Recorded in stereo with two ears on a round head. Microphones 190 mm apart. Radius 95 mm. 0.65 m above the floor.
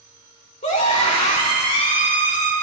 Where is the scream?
35° left (ahead or behind), 2 m.